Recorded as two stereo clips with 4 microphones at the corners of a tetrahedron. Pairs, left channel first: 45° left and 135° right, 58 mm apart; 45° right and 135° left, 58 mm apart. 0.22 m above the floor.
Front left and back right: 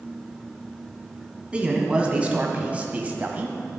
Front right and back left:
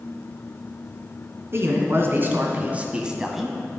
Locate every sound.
1.5 s a man speaking: 160° left, 1.9 m; by 3.6 s 130° right, 1.2 m